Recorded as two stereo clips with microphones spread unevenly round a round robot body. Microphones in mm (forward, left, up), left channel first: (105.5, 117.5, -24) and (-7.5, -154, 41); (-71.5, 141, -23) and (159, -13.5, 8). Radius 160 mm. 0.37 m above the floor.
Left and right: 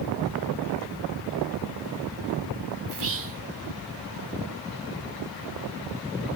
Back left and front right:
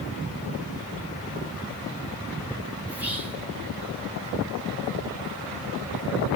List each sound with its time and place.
2.9 s whispering: 125° right, 1.0 m